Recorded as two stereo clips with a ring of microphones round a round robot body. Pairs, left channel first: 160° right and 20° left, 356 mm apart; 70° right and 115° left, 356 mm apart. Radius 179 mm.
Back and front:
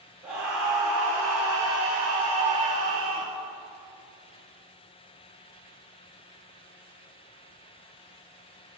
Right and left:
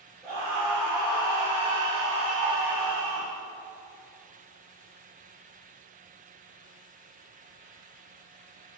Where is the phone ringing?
I don't hear a phone ringing.